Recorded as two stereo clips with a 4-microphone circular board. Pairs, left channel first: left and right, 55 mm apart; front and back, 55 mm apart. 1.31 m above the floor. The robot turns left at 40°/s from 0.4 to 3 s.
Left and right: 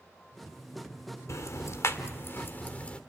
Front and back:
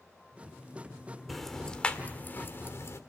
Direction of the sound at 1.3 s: 90° left.